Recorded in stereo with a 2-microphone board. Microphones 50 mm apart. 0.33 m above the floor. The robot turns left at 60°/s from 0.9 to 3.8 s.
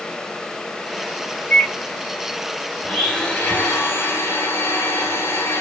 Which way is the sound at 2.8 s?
Straight behind.